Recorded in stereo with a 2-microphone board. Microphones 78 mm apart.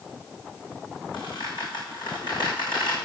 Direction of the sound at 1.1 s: 80° left.